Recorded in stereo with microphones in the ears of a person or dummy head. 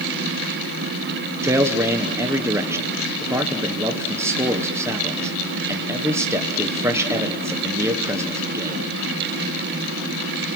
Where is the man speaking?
10° right (ahead or behind), 1.2 m.